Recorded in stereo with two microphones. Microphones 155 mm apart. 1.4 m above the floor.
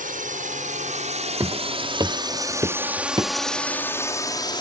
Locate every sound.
0.0 s a drone: 60° right (ahead or behind); by 4.6 s 30° left (ahead or behind)
1.4 s footsteps: 20° right (ahead or behind); by 3.3 s 25° right (ahead or behind)